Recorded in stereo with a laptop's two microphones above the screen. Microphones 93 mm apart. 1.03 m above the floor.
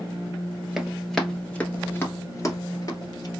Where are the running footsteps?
Centre (ahead or behind), 1.3 m; by 3.3 s 45° left (ahead or behind), 1.4 m.